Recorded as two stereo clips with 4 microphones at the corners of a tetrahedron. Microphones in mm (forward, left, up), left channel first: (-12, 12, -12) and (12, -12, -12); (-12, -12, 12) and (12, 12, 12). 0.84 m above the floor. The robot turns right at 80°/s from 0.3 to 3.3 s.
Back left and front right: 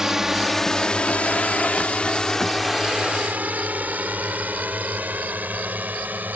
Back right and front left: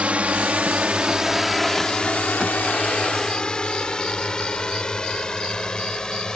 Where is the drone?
20° left; by 6.4 s 70° right.